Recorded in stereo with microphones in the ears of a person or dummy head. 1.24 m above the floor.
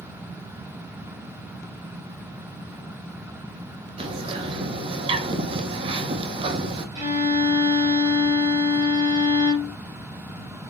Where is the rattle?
No rattle in this recording.